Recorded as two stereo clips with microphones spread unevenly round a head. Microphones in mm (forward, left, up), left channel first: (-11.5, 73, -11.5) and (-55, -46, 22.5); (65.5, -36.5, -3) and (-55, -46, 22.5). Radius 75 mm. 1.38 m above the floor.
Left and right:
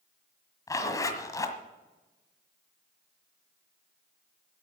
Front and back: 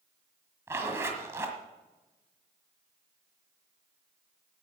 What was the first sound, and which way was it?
A zipper, 140° left.